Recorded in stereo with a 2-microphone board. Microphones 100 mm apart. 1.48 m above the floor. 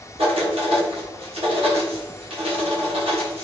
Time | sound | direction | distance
0.2 | writing | 90° right | 1.2 m